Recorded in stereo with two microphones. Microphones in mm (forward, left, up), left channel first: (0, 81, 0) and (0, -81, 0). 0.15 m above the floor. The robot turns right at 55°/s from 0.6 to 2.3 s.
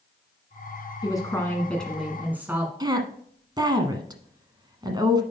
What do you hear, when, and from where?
1.0 s a woman speaking: 130° left, 1.3 m; by 2.7 s 160° right, 1.3 m
2.8 s a woman speaking: 25° right (ahead or behind), 1.2 m